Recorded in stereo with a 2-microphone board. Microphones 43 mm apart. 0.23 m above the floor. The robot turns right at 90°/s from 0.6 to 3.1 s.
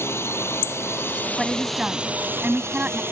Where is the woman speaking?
Straight behind; by 3.0 s 35° right.